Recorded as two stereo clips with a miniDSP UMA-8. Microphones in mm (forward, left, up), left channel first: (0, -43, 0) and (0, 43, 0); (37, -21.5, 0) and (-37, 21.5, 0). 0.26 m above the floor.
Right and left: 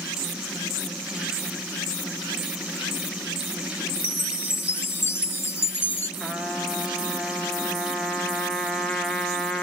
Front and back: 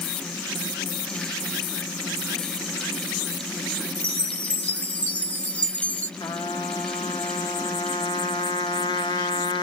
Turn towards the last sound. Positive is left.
turn(degrees=0)